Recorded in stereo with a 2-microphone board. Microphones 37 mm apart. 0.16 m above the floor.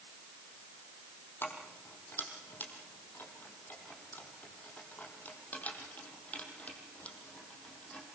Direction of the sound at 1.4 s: 75° left (ahead or behind).